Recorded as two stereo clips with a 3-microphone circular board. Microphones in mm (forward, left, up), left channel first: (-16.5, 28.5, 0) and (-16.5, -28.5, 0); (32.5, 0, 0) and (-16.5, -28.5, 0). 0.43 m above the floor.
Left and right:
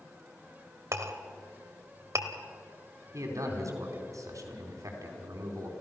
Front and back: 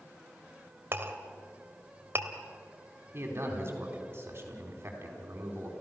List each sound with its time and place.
0.9 s a clink: 110° right, 1.3 m
3.1 s a man speaking: 105° right, 4 m